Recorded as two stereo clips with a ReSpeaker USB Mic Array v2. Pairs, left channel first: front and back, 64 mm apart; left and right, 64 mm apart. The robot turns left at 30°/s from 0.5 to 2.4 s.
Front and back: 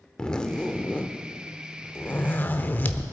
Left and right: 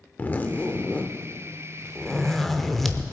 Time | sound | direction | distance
0.2 | a zipper | 60° left | 0.7 m